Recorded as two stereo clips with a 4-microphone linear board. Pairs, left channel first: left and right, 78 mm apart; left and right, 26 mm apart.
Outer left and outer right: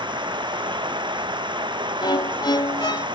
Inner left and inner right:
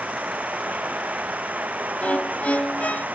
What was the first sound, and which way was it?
Running water, 80° right.